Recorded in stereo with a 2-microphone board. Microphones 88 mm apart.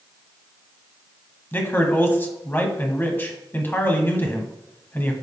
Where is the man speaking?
25° left (ahead or behind), 1.1 m.